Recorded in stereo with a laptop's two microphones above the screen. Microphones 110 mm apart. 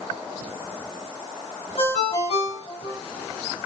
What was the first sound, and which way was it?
A ringtone, 65° left (ahead or behind).